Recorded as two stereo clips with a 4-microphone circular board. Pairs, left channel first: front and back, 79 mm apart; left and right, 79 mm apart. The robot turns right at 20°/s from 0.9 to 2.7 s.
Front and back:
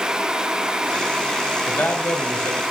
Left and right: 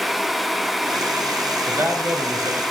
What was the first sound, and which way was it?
A man speaking, 55° right.